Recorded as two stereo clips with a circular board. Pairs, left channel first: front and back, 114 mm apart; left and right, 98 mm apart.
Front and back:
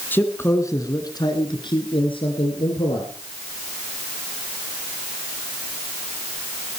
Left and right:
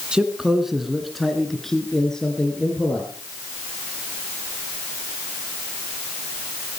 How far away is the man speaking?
About 1.5 m.